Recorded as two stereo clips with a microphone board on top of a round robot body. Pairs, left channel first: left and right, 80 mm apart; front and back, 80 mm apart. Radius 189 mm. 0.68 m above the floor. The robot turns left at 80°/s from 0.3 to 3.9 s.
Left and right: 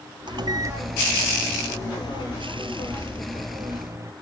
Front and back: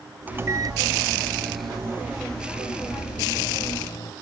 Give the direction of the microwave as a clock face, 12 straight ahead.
4 o'clock.